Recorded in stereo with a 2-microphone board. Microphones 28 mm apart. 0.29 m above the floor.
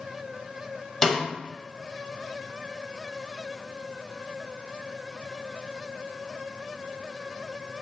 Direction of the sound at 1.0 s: 15° left (ahead or behind).